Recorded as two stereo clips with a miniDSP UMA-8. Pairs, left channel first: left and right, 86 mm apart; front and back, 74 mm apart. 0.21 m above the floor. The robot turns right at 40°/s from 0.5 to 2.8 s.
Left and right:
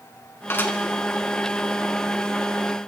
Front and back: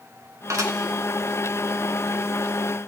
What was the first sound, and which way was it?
Dishes clattering, 145° left.